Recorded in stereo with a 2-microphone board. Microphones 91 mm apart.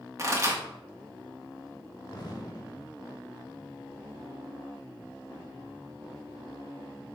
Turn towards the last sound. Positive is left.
turn(degrees=45)  # may be behind; listen again after turning